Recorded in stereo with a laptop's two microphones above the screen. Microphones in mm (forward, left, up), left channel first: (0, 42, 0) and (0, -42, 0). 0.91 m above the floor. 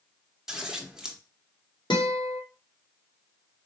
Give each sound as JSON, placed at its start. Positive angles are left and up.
{"t": 0.5, "sound": "scissors", "side_deg": -5, "distance_m": 0.9}
{"t": 1.9, "sound": "a guitar", "side_deg": 65, "distance_m": 1.4}